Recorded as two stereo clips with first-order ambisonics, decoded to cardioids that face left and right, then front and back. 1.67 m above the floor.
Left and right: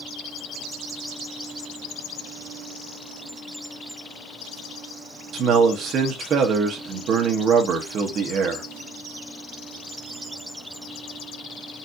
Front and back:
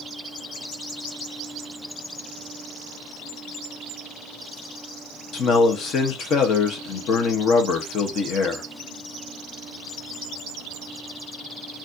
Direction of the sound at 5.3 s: 45° right.